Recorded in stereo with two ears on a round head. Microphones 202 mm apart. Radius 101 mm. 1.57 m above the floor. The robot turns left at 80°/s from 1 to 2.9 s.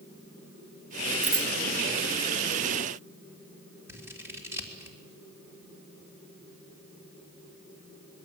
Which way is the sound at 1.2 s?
5° right (ahead or behind).